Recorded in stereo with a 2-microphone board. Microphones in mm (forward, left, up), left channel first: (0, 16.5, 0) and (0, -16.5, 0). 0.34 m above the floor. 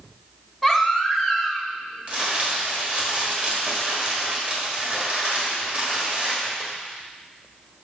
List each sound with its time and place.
0.6 s a baby crying: 5° left (ahead or behind), 0.9 m
2.1 s crumpling: 35° right (ahead or behind), 1.6 m